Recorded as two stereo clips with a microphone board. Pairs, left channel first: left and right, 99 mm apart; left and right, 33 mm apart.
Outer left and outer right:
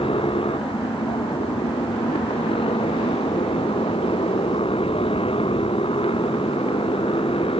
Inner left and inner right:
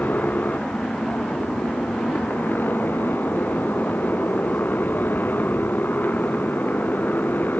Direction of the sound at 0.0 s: 70° left (ahead or behind).